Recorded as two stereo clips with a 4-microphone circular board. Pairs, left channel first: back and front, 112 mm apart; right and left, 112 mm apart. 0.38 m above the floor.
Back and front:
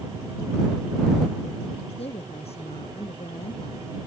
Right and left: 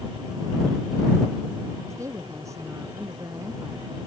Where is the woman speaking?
155° left.